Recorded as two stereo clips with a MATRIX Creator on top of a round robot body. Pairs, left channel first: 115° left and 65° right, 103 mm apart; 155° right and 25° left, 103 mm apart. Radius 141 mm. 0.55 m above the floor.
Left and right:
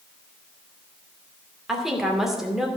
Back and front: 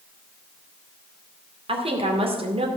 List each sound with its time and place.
1.7 s a woman speaking: 20° left, 2.5 m